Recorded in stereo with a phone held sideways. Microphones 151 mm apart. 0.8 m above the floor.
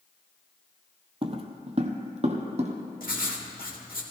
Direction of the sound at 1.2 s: 40° right (ahead or behind).